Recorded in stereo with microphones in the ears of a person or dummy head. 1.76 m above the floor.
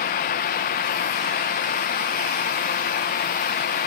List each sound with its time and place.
0.0 s a fan: 40° left (ahead or behind), 1.0 m